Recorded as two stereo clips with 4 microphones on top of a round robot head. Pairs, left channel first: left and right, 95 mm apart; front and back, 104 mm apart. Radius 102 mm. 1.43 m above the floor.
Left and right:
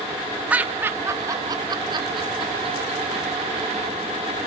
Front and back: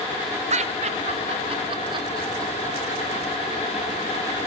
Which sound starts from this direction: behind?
Laughter, at 0.5 s.